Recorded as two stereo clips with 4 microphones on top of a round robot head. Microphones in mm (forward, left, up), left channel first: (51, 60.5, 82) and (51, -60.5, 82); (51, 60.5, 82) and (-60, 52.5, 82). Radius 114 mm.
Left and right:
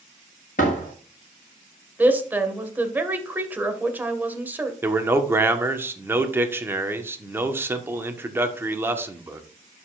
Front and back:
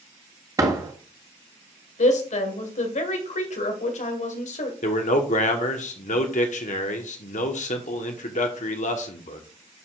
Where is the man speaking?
20° right, 1.3 m.